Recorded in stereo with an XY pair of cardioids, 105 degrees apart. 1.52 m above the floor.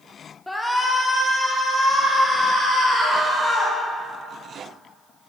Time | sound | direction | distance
0.5 | a shout | 15° left | 0.6 m